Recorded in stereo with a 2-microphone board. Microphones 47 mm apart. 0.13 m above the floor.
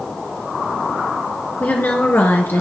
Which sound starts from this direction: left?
A woman speaking, at 1.6 s.